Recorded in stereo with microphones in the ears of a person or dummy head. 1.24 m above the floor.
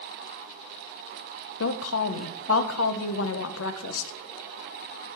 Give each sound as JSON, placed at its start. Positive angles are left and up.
{"t": 1.6, "sound": "a woman speaking", "side_deg": 85, "distance_m": 0.6}